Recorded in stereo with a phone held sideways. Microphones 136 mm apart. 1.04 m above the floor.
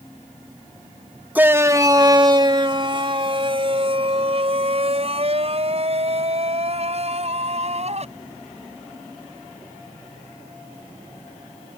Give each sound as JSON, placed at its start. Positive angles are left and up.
{"t": 1.4, "sound": "a shout", "side_deg": -10}